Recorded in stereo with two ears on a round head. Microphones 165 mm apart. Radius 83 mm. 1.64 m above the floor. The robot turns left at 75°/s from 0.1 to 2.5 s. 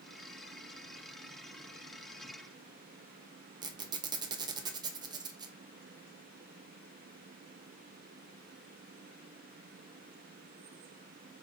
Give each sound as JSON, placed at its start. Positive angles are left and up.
{"t": 3.6, "sound": "a squeak", "side_deg": -20, "distance_m": 0.5}